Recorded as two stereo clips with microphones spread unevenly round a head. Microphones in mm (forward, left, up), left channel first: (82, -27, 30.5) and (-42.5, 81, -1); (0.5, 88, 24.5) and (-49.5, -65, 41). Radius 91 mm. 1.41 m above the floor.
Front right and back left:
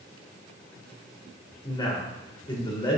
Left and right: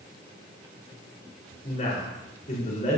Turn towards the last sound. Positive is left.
turn(degrees=20)